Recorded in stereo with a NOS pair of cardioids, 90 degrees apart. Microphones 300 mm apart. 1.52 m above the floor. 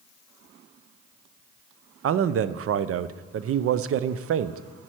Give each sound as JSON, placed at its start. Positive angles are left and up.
{"t": 2.0, "sound": "a man speaking", "azimuth_deg": -50, "distance_m": 0.6}